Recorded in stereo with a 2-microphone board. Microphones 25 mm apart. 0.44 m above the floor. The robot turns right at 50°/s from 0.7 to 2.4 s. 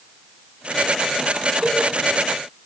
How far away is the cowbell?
About 3.5 m.